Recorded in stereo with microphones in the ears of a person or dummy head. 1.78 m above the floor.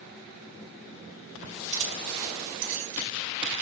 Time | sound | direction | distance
1.7 | keys jangling | 35° right (ahead or behind) | 2.5 m